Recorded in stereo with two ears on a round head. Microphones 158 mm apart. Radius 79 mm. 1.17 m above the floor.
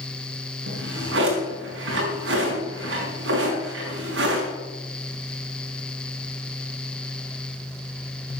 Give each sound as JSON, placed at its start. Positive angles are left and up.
{"t": 0.7, "sound": "a drawer", "side_deg": -80, "distance_m": 4.5}